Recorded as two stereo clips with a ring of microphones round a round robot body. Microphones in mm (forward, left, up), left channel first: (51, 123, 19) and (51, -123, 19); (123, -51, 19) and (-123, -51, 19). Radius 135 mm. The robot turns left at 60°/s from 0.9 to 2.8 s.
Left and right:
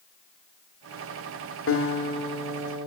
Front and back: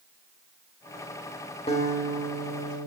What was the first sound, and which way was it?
A guitar, 65° left.